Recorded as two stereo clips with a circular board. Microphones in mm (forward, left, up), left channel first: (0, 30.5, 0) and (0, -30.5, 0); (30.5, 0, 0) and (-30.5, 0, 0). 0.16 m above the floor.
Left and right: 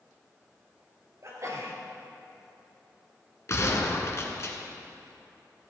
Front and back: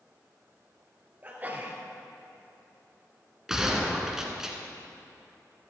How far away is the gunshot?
About 1.7 m.